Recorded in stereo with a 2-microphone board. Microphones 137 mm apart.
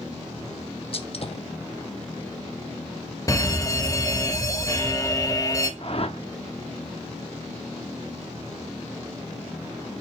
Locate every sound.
0.9 s a gunshot: 50° left (ahead or behind), 1.2 m
3.3 s a fire alarm: 25° left (ahead or behind), 1.4 m
5.8 s a whoosh: 50° left (ahead or behind), 0.8 m